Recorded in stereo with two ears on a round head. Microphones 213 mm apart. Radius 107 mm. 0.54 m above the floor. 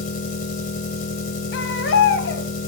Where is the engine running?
35° left (ahead or behind), 2.5 m.